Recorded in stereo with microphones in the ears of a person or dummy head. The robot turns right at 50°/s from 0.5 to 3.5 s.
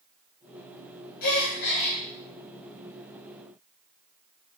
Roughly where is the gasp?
Left.